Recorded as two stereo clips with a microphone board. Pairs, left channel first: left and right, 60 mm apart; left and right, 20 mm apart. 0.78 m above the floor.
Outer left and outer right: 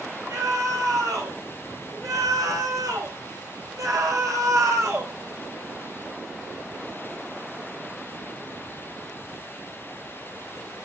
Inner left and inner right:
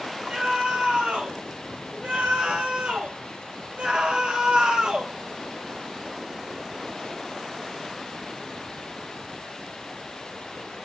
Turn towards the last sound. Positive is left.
turn(degrees=-50)  # may be behind; listen again after turning